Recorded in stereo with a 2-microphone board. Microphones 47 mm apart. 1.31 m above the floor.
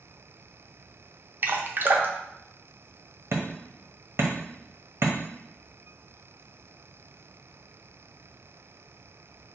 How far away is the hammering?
About 0.9 m.